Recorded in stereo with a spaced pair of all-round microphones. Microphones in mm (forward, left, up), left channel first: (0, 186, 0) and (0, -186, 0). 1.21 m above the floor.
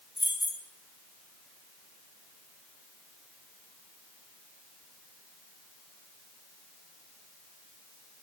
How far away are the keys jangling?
About 2 m.